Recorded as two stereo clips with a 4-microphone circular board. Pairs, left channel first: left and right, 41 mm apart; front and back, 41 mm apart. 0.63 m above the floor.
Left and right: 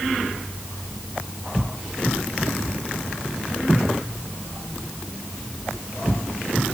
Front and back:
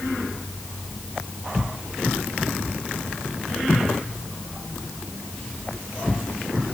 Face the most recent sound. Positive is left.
No sound to turn to.